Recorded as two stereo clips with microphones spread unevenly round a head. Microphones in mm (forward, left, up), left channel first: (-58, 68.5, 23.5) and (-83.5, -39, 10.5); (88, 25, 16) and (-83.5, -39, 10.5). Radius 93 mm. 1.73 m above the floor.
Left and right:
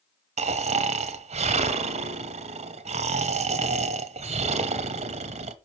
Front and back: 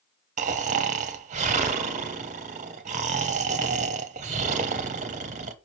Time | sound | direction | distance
0.4 | snoring | 115° right | 1.0 m